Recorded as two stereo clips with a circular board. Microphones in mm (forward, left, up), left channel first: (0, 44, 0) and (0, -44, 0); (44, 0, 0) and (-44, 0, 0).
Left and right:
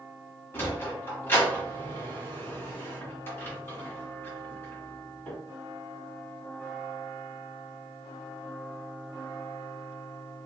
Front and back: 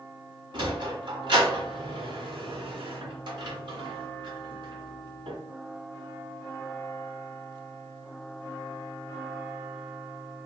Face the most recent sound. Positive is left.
turn(degrees=155)